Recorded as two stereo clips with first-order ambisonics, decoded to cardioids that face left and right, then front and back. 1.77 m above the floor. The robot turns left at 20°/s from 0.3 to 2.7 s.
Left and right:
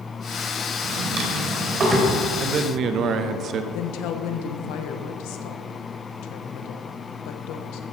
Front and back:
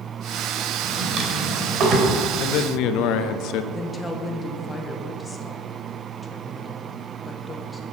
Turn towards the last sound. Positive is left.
turn(degrees=75)